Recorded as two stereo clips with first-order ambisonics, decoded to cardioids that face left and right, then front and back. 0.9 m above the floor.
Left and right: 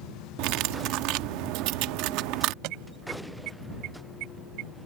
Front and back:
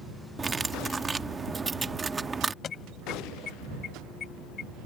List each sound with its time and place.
0.4 s cutlery clinking: 105° right
2.6 s an alarm: 65° right